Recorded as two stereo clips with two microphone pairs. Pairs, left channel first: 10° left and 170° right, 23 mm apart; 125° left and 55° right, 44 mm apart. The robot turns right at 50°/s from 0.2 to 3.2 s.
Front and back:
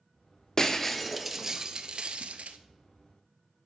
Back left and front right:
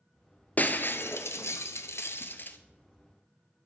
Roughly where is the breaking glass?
Left.